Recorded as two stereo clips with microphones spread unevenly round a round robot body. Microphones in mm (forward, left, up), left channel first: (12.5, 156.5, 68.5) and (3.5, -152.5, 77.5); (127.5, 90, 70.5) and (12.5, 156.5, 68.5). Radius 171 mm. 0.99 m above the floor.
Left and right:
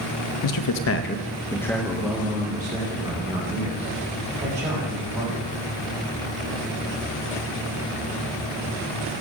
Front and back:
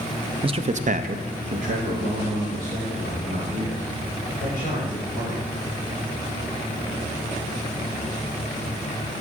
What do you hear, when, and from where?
0.4 s a man speaking: 95° left, 0.9 m; by 5.5 s 160° right, 5.5 m